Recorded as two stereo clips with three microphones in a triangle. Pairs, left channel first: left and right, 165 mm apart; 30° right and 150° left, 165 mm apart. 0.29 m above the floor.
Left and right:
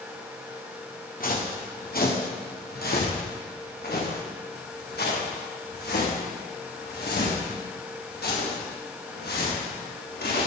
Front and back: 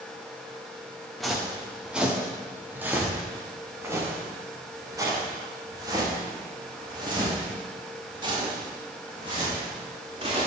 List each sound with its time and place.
1.2 s footsteps: 60° left, 3.5 m; by 10.5 s 95° left, 9 m